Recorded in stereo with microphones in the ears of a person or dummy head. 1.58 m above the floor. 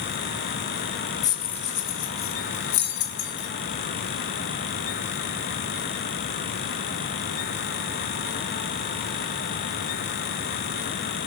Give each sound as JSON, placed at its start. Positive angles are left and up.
{"t": 1.2, "sound": "keys jangling", "side_deg": 20, "distance_m": 0.6}